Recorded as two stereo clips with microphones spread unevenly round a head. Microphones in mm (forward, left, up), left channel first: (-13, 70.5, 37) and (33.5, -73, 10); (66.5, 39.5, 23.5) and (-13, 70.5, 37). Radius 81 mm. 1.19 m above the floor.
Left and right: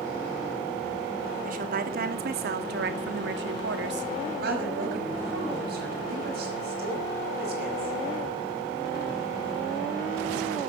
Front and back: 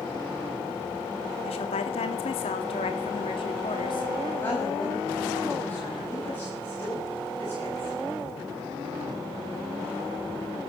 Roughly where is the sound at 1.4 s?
Ahead right.